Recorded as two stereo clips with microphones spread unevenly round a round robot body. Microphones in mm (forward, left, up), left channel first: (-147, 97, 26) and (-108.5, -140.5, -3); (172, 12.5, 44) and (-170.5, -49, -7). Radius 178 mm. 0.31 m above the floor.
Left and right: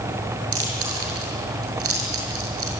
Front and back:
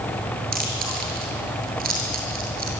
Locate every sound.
0.5 s chewing: 105° right, 6.5 m